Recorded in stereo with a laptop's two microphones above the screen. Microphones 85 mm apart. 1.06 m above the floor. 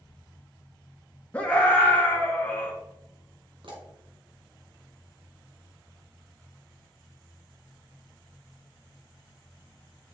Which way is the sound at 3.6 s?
70° right (ahead or behind).